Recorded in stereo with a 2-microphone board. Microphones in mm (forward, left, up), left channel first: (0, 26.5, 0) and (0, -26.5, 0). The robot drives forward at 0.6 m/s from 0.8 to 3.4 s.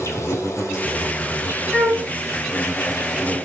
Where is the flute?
20° left (ahead or behind), 1.7 m.